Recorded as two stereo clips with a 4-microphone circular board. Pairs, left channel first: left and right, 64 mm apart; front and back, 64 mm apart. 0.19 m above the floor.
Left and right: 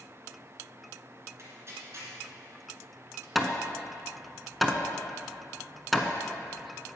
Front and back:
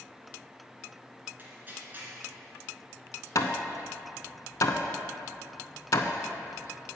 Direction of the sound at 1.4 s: 130° right.